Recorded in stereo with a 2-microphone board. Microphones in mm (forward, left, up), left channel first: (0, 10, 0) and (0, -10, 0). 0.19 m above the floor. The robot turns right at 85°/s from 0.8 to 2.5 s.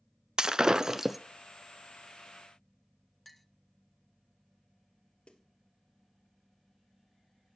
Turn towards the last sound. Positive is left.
turn(degrees=65)  # may be behind; listen again after turning